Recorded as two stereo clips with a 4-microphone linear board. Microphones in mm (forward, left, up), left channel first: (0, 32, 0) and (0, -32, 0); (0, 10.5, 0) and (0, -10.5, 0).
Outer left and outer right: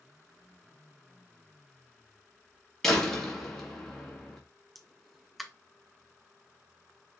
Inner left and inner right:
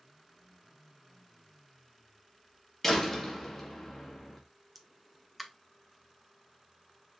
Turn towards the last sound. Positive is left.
turn(degrees=0)  # may be behind; listen again after turning